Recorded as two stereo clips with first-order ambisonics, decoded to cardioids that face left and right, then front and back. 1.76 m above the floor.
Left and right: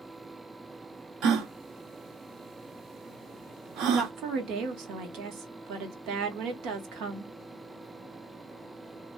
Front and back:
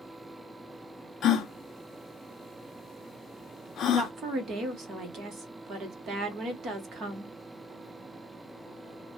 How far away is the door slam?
No door slam in this recording.